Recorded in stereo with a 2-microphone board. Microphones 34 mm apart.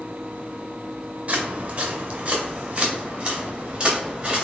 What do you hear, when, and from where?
1.3 s footsteps: 40° right (ahead or behind), 1.5 m; by 4.5 s 30° right (ahead or behind), 3 m